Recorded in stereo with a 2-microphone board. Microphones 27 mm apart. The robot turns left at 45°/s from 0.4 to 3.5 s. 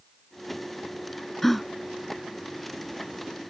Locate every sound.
1.4 s a gasp: 15° left (ahead or behind); by 3.5 s 80° right